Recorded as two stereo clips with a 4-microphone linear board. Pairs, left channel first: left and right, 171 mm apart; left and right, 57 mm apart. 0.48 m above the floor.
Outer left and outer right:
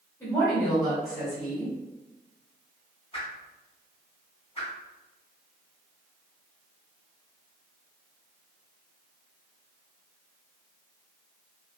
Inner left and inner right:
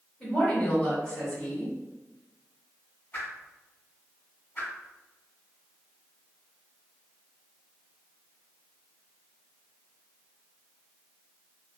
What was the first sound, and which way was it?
A woman speaking, 20° left (ahead or behind).